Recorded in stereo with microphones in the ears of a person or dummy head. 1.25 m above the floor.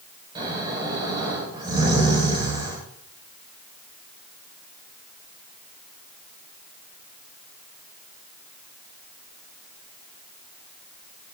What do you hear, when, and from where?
0.3 s snoring: 20° right (ahead or behind), 5.5 m